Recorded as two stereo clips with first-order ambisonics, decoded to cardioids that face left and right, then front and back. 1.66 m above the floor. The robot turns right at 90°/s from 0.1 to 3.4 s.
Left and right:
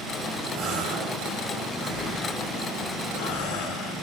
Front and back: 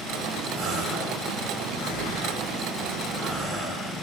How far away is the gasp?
About 5 m.